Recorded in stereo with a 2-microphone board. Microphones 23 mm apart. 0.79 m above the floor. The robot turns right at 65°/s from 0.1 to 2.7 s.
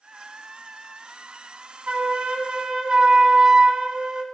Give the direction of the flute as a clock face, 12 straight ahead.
3 o'clock.